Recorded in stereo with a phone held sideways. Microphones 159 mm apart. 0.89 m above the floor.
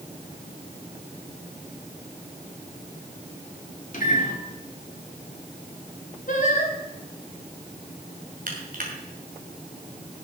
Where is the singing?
55° left (ahead or behind), 2.5 m.